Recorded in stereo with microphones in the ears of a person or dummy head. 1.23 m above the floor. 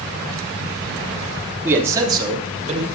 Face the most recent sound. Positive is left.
turn(degrees=-35)  # may be behind; listen again after turning